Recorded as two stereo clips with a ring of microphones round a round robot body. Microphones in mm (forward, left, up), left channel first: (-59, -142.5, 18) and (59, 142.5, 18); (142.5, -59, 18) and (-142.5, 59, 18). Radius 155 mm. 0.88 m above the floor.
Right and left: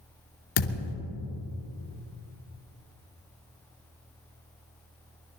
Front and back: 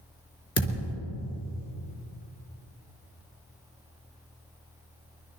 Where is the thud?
100° right, 3 m.